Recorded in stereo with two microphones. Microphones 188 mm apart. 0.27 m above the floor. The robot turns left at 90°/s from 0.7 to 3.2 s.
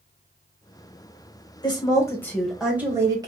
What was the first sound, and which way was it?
A woman speaking, 25° left (ahead or behind).